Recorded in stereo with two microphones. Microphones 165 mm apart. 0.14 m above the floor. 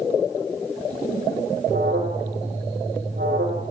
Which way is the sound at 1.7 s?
80° right.